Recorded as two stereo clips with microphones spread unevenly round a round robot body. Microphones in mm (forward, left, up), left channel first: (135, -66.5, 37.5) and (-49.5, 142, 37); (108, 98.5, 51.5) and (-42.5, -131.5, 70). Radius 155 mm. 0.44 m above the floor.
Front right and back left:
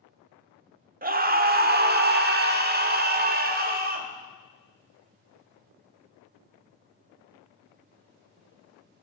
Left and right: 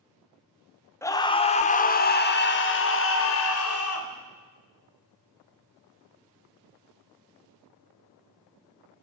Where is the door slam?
No door slam in this recording.